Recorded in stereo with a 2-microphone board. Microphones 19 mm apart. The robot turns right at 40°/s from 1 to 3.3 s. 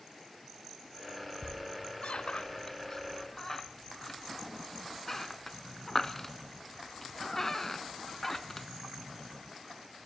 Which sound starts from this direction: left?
A squeak, at 1.4 s.